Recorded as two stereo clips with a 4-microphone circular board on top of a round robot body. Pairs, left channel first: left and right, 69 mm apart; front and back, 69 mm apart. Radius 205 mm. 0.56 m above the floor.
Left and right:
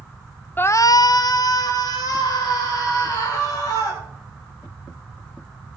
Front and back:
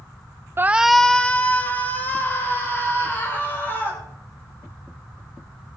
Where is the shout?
140° left, 0.6 m; by 4.0 s 60° left, 4.5 m.